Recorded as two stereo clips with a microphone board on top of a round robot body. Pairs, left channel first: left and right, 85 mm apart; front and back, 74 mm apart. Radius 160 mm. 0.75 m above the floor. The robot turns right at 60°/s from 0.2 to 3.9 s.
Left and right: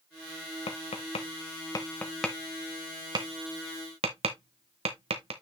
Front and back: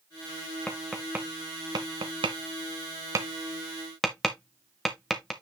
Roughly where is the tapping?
Left.